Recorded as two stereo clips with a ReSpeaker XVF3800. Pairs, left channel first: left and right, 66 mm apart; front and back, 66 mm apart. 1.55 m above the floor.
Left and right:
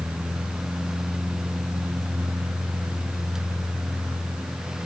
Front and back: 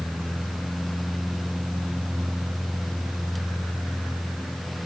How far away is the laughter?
No laughter in this recording.